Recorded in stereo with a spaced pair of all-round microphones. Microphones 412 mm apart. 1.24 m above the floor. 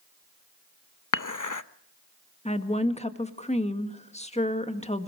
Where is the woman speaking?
15° left (ahead or behind), 1.8 m.